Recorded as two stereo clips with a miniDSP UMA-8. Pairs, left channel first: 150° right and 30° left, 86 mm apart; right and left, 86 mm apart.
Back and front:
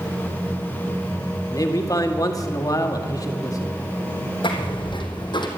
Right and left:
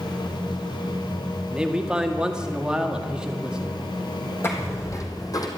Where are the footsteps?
150° right, 3 m; by 5.5 s 130° right, 2.5 m.